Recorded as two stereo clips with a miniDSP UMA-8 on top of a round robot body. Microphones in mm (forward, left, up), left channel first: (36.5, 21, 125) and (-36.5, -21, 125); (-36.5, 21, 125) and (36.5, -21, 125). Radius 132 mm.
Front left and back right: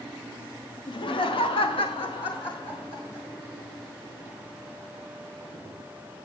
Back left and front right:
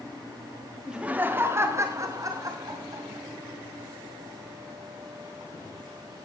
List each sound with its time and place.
0.9 s laughter: 55° left, 1.4 m; by 3.2 s 15° left, 4.5 m